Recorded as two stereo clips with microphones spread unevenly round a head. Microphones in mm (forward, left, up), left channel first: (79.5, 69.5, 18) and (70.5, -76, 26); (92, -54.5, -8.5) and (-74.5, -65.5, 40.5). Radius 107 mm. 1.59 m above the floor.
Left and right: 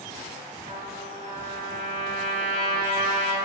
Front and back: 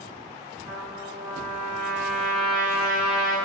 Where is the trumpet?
95° right, 1.1 m.